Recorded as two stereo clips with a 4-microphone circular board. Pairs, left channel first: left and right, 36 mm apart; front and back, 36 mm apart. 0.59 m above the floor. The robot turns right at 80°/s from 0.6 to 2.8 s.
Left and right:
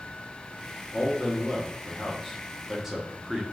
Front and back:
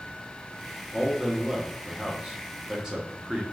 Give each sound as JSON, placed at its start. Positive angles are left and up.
{"t": 0.9, "sound": "a man speaking", "azimuth_deg": 60, "distance_m": 0.6}